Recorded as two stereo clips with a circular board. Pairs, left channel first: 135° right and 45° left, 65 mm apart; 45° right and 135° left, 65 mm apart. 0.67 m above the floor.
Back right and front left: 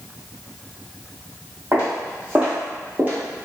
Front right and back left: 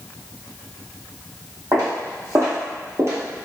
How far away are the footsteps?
About 1.7 m.